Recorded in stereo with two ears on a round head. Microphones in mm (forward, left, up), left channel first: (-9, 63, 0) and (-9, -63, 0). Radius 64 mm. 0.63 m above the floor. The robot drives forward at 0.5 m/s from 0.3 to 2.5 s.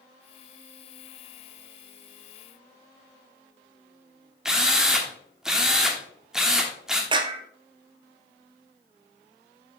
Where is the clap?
35° right (ahead or behind), 0.9 m.